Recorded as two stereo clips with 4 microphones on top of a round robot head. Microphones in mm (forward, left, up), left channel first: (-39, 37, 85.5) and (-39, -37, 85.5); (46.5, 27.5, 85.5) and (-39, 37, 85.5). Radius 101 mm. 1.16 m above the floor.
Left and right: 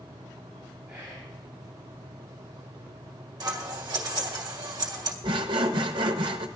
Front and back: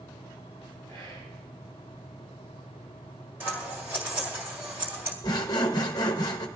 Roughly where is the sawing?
Ahead right.